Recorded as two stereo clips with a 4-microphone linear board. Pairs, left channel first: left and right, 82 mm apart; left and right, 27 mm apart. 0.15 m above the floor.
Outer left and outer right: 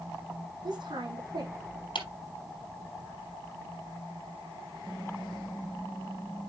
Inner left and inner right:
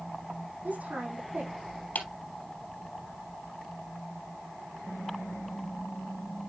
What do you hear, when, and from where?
0.6 s a woman speaking: 65° right (ahead or behind), 6.5 m
1.9 s a clap: 70° left (ahead or behind), 3 m
4.9 s typing on a keyboard: 50° left (ahead or behind), 1.5 m